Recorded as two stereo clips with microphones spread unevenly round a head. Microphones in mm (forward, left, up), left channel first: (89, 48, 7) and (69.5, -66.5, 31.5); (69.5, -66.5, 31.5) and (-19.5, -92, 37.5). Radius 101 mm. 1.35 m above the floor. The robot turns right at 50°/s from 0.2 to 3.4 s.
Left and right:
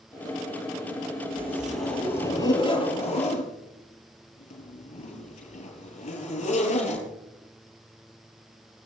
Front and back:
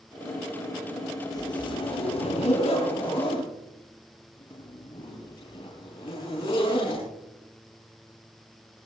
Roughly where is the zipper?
Ahead right.